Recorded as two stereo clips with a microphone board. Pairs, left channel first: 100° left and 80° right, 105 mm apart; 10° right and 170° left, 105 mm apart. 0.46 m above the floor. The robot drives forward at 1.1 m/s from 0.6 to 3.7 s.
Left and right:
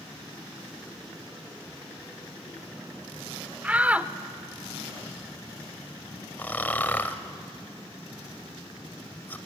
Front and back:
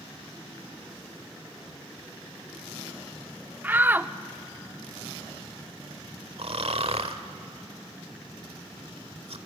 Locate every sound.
3.6 s a shout: 130° right, 0.8 m; by 4.1 s 140° right, 0.8 m
6.4 s snoring: 170° left, 1.2 m